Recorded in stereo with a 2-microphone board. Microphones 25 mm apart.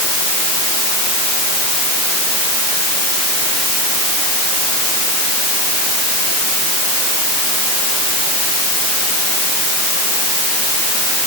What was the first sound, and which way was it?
Only background noise.